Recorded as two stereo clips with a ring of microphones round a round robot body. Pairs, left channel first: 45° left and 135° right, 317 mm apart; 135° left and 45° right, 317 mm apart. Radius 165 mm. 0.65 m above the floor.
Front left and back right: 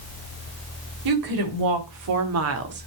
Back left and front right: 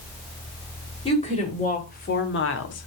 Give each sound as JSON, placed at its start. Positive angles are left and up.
{"t": 1.1, "sound": "a woman speaking", "azimuth_deg": -155, "distance_m": 3.0}